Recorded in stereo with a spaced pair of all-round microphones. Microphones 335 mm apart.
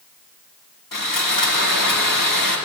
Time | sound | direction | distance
0.9 | sawing | 80° left | 1.9 m